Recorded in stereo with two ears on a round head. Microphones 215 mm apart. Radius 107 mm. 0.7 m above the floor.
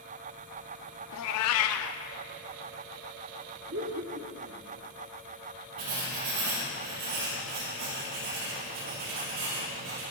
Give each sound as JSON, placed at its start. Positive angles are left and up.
{"t": 1.1, "sound": "a cat meowing", "side_deg": 70, "distance_m": 0.5}
{"t": 3.7, "sound": "laughter", "side_deg": -55, "distance_m": 1.6}
{"t": 5.8, "sound": "writing", "side_deg": -80, "distance_m": 4.0}